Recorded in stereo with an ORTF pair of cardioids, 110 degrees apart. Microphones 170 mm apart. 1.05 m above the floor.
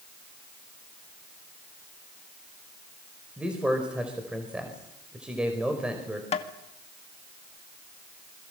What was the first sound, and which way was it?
A man speaking, 5° right.